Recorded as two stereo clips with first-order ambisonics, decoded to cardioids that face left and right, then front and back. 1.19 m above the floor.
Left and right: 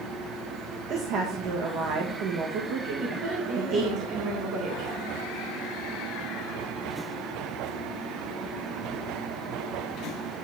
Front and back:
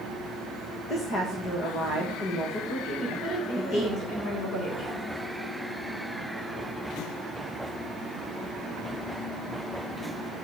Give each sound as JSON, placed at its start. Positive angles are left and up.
{"t": 0.9, "sound": "a woman speaking", "azimuth_deg": -55, "distance_m": 1.5}
{"t": 3.0, "sound": "a woman speaking", "azimuth_deg": -55, "distance_m": 4.5}